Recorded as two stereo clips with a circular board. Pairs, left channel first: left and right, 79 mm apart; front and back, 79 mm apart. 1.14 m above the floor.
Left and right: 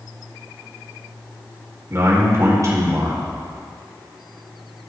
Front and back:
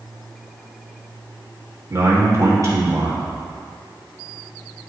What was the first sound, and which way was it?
A man speaking, 135° right.